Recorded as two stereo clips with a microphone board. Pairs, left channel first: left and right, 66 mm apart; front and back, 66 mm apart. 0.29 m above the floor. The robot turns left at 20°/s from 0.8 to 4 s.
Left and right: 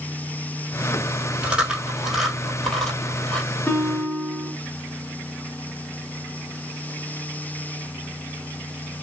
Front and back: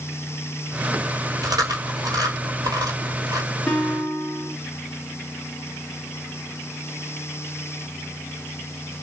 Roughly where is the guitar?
Ahead left.